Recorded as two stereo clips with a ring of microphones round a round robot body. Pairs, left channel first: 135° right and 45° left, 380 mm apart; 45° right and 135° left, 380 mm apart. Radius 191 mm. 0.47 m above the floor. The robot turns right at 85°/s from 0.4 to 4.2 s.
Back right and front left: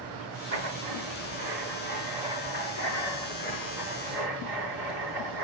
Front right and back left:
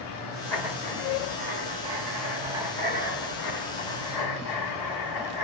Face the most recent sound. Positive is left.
turn(degrees=-5)